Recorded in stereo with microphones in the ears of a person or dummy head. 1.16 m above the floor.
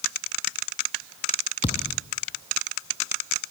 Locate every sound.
1.6 s a thud: 20° left (ahead or behind), 0.6 m